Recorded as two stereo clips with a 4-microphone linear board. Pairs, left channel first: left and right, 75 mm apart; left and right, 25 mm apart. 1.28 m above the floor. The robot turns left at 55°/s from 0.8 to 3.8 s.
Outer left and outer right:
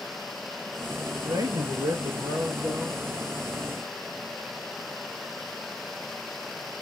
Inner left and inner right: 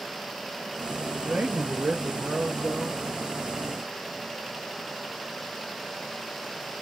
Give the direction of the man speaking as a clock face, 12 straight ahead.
2 o'clock.